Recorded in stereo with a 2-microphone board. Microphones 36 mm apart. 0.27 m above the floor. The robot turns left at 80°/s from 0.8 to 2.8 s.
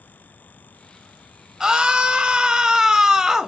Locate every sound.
1.6 s a scream: 20° right (ahead or behind), 1.0 m; by 3.5 s 15° right (ahead or behind), 1.0 m